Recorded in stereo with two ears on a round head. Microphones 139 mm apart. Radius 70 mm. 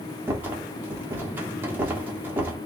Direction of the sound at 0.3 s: 15° right (ahead or behind).